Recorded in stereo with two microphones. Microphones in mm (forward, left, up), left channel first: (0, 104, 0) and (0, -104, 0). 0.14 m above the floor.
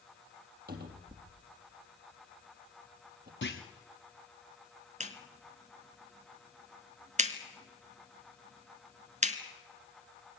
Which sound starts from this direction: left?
A clunk, at 3.4 s.